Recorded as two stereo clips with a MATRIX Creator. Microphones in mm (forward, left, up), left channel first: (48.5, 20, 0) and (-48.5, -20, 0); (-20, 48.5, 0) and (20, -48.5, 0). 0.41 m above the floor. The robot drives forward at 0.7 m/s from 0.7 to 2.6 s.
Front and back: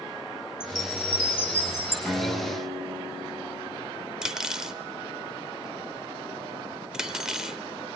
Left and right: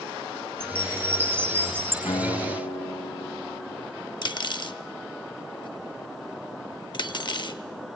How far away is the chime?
About 2.5 m.